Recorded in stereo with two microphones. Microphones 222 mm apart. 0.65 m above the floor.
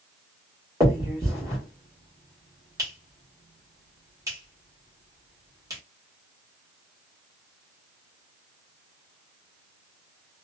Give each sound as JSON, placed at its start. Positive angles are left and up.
{"t": 0.8, "sound": "a finger snap", "side_deg": -15, "distance_m": 1.5}